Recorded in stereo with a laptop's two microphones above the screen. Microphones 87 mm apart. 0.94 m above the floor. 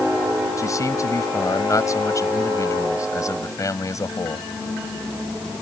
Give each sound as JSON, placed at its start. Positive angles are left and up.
{"t": 0.6, "sound": "a man speaking", "side_deg": 40}